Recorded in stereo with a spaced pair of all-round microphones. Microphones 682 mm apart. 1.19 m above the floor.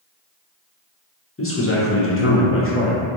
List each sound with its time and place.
1.4 s a man speaking: 20° left (ahead or behind), 0.5 m